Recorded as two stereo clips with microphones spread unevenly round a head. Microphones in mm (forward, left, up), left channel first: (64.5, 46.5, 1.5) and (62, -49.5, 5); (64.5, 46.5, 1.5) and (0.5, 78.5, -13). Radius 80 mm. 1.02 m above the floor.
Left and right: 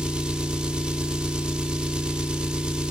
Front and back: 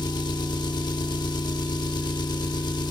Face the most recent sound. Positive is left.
turn(degrees=-10)